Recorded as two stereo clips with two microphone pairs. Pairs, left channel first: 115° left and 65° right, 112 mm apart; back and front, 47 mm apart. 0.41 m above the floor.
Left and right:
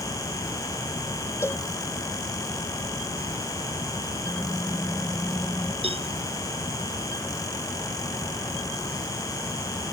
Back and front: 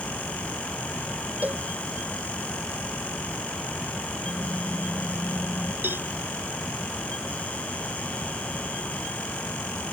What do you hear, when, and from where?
1.4 s a cowbell: 50° left
4.2 s typing on a keyboard: 165° right
5.8 s a cowbell: 35° right